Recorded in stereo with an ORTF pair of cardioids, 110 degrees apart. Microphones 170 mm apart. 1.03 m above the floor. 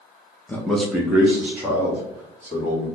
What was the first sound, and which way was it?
A man speaking, 10° left.